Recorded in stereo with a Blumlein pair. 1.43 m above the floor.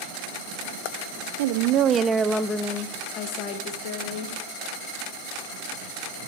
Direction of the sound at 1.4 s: 55° right.